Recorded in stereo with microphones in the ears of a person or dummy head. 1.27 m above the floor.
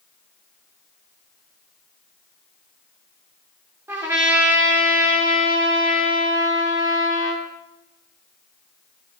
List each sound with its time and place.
3.9 s a trumpet: 15° right (ahead or behind), 3.5 m